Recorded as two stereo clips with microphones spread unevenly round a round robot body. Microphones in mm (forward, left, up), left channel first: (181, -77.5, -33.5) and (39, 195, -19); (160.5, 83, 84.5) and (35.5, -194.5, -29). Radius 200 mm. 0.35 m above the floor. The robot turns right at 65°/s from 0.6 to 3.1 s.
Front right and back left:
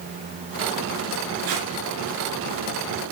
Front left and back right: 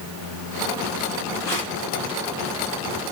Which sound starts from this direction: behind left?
Tape being pulled, at 1.4 s.